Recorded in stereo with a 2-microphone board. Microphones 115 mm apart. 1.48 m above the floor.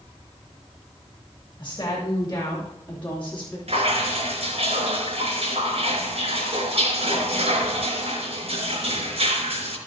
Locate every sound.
1.6 s a woman speaking: 35° left (ahead or behind), 3 m; by 3.6 s 10° left (ahead or behind), 4 m
3.7 s dripping: 60° right (ahead or behind), 4 m